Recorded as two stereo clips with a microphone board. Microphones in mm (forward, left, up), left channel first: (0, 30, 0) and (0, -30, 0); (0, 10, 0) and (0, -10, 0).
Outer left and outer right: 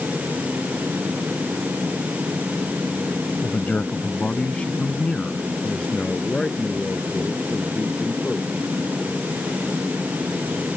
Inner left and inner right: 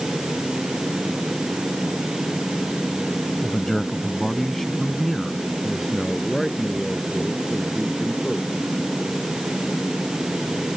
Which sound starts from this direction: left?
A man speaking, at 3.4 s.